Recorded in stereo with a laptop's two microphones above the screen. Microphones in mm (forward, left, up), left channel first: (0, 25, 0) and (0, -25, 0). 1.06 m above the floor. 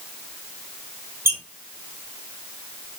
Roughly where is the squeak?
Right.